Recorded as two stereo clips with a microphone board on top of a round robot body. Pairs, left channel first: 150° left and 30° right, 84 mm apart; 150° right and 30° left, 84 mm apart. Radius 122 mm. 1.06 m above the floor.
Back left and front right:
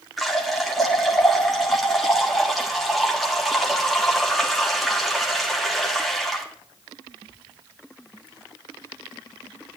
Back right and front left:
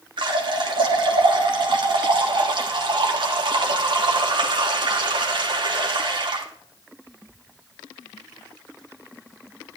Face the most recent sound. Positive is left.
turn(degrees=60)